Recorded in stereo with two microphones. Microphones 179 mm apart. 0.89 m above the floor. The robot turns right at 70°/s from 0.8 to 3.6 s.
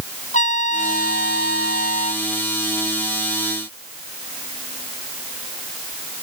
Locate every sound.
0.3 s a trumpet: 45° left; by 2.2 s 145° left